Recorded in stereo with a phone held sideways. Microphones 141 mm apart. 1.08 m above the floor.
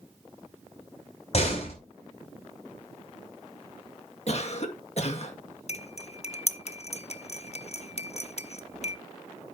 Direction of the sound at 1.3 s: 50° left (ahead or behind).